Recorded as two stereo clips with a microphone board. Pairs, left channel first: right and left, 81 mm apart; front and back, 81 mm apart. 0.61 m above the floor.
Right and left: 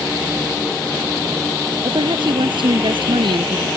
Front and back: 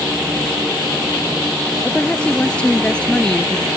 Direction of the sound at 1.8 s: 75° left.